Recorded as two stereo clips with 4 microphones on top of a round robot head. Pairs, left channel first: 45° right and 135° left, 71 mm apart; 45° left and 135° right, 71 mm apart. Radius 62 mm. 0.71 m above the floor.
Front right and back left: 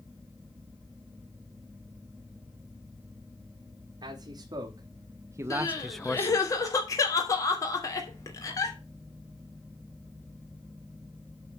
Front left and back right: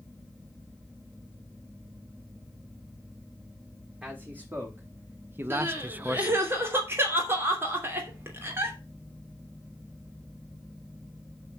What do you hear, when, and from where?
4.0 s a man speaking: 155° left, 1.7 m; by 6.5 s 55° right, 0.6 m
5.5 s crying: 80° right, 2.5 m